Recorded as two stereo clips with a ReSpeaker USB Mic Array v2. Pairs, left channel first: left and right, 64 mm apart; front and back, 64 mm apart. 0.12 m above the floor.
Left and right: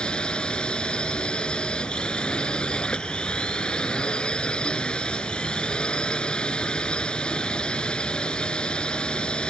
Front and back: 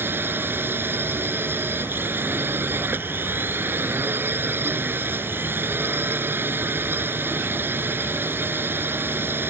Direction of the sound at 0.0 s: 160° left.